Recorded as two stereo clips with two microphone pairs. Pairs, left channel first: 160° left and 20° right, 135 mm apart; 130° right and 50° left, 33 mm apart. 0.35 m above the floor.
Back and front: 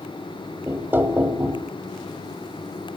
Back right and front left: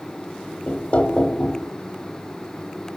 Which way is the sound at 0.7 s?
90° right.